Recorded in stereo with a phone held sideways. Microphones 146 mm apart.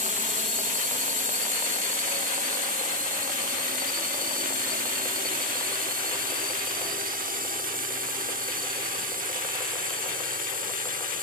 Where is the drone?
55° right (ahead or behind); by 11.2 s 70° right (ahead or behind).